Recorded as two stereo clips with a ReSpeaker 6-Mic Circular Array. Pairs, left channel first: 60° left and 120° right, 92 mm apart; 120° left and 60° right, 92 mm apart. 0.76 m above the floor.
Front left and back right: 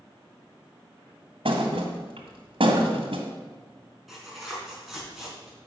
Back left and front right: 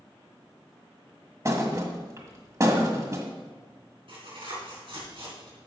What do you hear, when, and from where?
1.4 s a thud: 115° right, 1.6 m
4.1 s tearing paper: 30° right, 4.5 m